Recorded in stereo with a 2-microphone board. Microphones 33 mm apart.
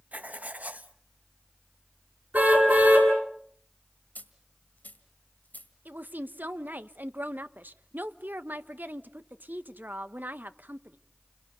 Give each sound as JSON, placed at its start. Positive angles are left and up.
{"t": 0.1, "sound": "writing", "side_deg": -55, "distance_m": 0.9}
{"t": 2.3, "sound": "a car horn", "side_deg": -65, "distance_m": 8.0}
{"t": 4.2, "sound": "a dropped coin", "side_deg": 60, "distance_m": 1.9}
{"t": 5.8, "sound": "a woman speaking", "side_deg": -70, "distance_m": 0.9}